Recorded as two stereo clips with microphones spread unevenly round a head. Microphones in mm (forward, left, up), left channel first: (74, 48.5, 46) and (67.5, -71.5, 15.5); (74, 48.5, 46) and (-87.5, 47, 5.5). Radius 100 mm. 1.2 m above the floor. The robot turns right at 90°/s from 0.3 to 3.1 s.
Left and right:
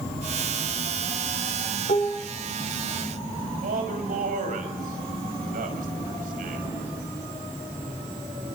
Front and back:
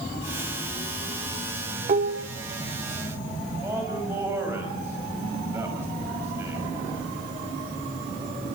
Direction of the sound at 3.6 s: 100° right.